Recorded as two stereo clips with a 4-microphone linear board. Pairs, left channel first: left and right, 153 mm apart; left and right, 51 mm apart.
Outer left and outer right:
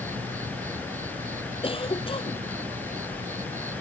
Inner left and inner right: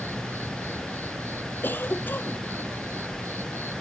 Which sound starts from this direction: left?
A cough, at 1.6 s.